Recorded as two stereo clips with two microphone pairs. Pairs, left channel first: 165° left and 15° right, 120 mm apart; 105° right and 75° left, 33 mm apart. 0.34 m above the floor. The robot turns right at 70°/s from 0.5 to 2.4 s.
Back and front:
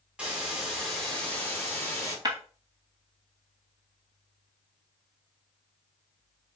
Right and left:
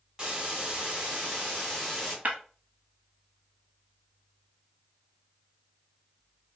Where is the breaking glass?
40° left, 1.0 m; by 2.4 s 50° left, 1.0 m.